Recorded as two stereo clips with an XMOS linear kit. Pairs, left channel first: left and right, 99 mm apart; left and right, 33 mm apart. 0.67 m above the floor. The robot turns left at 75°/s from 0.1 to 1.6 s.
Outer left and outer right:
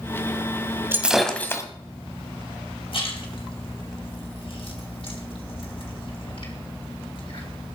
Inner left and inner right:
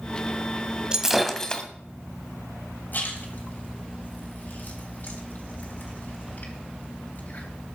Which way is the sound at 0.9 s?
160° right.